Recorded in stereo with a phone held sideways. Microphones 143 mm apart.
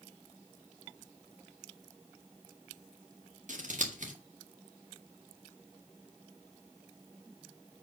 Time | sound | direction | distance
3.5 | scissors | 60° right (ahead or behind) | 1.7 m